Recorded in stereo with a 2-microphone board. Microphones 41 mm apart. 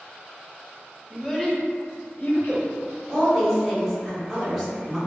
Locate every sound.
1.1 s a child speaking: centre (ahead or behind), 0.6 m; by 2.7 s 60° left (ahead or behind), 0.9 m
3.1 s a woman speaking: 5° left (ahead or behind), 1.0 m